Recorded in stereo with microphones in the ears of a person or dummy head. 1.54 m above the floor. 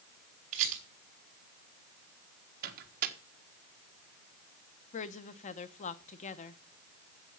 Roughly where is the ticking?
No ticking in this recording.